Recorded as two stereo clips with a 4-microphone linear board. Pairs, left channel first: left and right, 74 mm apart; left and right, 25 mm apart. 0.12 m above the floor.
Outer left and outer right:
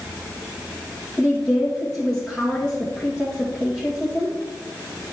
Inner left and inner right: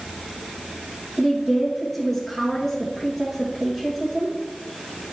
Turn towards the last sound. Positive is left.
turn(degrees=5)  # may be behind; listen again after turning